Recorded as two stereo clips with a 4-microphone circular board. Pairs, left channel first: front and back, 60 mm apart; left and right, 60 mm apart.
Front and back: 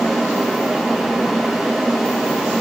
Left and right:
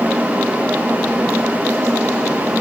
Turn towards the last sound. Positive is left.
No sound to turn to.